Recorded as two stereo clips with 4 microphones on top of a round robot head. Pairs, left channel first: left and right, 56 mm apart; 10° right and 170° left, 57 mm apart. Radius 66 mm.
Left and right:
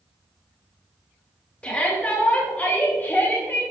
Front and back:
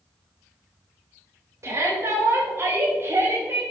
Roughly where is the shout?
Behind left.